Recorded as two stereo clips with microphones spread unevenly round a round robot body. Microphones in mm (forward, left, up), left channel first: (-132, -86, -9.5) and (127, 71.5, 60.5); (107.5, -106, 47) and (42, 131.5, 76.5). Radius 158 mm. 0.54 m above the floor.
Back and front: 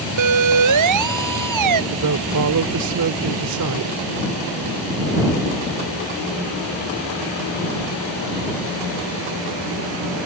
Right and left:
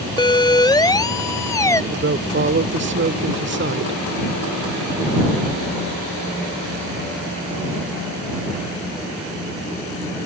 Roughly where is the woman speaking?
Ahead left.